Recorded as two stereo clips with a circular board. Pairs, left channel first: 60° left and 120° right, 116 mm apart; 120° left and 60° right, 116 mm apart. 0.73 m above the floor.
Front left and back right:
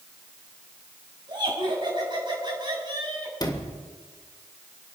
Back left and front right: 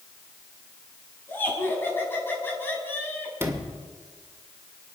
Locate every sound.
1.3 s laughter: 170° right, 6.5 m
3.4 s a sliding door: 10° left, 2.5 m